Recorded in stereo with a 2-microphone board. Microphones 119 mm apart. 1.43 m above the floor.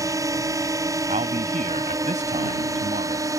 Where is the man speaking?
80° right.